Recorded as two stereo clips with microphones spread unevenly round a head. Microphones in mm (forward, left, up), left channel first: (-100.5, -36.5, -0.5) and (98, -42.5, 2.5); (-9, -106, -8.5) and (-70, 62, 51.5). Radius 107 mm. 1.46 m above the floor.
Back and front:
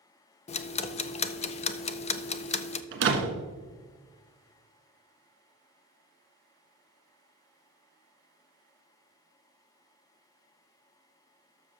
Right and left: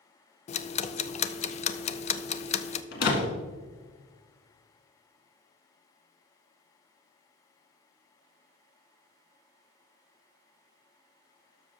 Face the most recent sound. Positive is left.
turn(degrees=-25)